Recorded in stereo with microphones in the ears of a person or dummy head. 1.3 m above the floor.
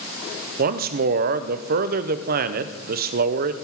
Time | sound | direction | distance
0.6 | a man speaking | 50° right (ahead or behind) | 0.6 m